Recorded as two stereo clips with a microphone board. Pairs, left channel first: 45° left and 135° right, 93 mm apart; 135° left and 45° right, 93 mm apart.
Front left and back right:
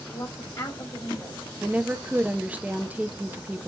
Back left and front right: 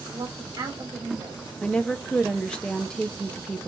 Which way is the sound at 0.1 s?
Straight ahead.